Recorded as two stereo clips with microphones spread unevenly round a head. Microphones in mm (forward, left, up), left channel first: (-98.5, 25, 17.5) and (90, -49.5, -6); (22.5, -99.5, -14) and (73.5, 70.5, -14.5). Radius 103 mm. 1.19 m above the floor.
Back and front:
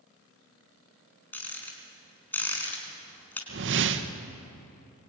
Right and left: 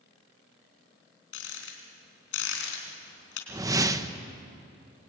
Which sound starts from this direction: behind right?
A rattle, at 1.3 s.